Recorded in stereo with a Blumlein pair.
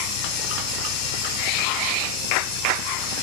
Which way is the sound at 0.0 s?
40° left.